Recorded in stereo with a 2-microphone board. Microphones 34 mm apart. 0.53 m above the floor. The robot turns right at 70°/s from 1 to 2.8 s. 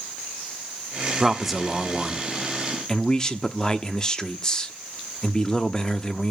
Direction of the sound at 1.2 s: 10° right (ahead or behind).